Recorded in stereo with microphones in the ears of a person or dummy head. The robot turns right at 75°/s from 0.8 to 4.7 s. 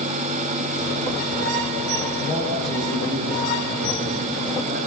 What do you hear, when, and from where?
2.2 s a man speaking: 130° left, 6.5 m; by 4.8 s 40° right, 6.5 m